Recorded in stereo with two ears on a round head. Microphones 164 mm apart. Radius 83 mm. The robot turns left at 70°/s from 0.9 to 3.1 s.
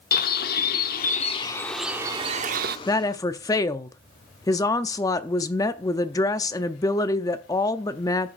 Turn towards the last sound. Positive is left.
turn(degrees=20)  # may be behind; listen again after turning